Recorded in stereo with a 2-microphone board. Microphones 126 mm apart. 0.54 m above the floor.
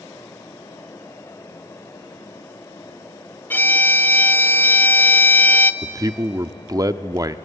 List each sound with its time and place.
3.5 s a violin: 15° left (ahead or behind), 0.9 m
5.8 s a man speaking: 30° right (ahead or behind), 0.7 m